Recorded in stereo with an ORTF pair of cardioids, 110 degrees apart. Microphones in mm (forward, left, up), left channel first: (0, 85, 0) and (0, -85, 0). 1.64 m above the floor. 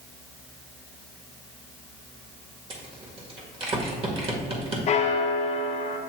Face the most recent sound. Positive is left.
turn(degrees=45)